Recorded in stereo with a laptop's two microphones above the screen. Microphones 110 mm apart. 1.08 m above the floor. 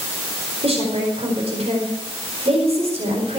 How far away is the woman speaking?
About 4.5 m.